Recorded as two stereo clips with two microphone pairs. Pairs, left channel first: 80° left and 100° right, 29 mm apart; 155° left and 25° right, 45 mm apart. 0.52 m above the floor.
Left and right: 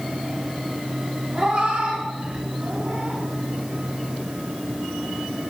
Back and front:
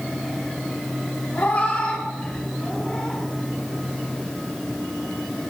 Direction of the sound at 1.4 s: 155° right.